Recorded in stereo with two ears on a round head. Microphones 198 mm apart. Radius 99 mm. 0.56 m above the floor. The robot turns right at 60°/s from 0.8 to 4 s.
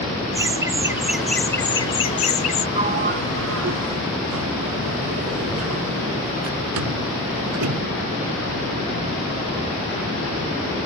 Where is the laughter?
25° right; by 2.6 s 85° left.